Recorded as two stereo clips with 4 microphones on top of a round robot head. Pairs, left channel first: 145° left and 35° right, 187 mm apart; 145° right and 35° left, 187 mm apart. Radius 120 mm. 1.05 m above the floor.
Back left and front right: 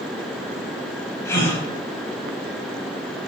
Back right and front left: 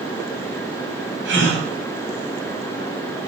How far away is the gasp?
About 5 m.